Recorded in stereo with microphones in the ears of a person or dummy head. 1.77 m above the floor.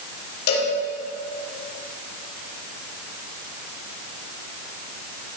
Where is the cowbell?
60° left (ahead or behind), 4 m.